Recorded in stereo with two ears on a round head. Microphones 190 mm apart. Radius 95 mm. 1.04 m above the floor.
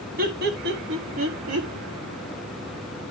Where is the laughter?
45° right (ahead or behind), 1.6 m; by 1.7 s 85° right, 1.5 m.